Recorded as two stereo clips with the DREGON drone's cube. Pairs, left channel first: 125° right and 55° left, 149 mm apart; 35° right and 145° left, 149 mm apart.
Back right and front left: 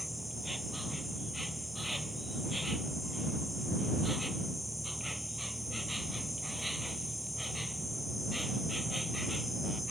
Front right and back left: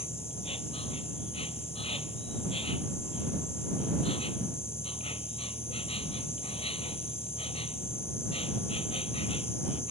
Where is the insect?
35° right.